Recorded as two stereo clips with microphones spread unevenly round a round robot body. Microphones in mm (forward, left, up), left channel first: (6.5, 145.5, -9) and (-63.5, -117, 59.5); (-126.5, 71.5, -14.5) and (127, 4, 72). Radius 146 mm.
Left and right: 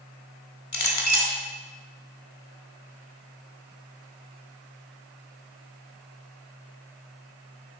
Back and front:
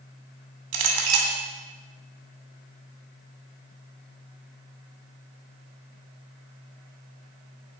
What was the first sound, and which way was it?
A clink, 20° left.